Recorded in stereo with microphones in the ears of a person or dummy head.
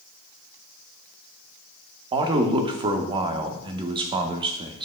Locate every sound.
2.1 s a man speaking: 25° right (ahead or behind), 0.5 m